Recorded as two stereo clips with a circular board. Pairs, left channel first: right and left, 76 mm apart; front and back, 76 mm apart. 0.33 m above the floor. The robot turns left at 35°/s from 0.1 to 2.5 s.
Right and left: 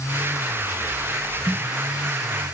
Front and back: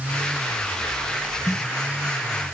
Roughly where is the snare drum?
Ahead left.